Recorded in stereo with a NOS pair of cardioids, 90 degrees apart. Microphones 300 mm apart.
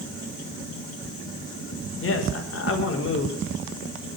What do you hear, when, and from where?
2.0 s a man speaking: 45° left, 5 m